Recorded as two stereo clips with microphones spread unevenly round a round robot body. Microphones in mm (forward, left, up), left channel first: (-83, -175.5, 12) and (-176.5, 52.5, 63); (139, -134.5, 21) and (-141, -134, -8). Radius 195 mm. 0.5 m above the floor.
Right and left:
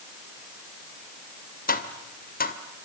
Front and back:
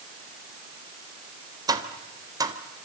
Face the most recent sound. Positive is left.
turn(degrees=-105)